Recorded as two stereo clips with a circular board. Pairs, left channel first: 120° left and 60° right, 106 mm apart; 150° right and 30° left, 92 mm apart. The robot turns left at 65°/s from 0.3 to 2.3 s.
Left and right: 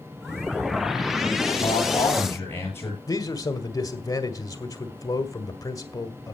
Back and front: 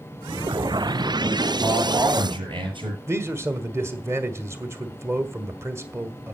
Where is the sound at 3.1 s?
75° left, 1.8 m.